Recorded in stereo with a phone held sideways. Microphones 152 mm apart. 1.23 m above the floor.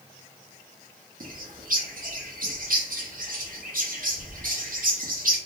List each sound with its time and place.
1.2 s a bird: 65° right (ahead or behind), 0.7 m